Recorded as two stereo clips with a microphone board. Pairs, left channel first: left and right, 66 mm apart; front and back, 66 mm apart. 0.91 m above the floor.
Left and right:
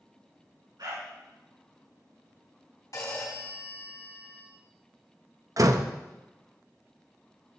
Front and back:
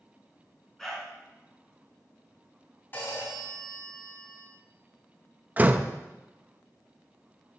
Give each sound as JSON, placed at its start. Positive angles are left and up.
{"t": 0.8, "sound": "a dog barking", "azimuth_deg": -85, "distance_m": 3.5}
{"t": 2.9, "sound": "a phone ringing", "azimuth_deg": 60, "distance_m": 3.5}
{"t": 5.6, "sound": "a door slam", "azimuth_deg": -115, "distance_m": 0.6}